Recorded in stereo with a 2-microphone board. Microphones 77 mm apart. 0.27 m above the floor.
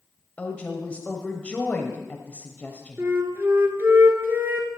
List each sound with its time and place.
0.4 s a woman speaking: 20° left (ahead or behind), 0.9 m
3.0 s a flute: 30° right (ahead or behind), 1.1 m